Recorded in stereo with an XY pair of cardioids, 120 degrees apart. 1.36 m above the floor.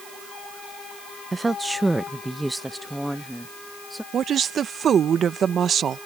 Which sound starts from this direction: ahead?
A woman speaking, at 1.3 s.